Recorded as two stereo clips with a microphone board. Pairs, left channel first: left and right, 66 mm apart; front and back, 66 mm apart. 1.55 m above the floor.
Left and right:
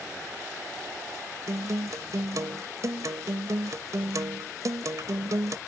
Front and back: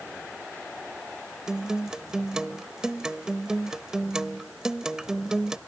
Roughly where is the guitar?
Right.